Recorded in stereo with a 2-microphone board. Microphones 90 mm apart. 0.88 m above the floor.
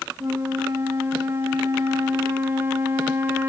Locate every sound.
0.2 s a flute: 25° right (ahead or behind), 1.1 m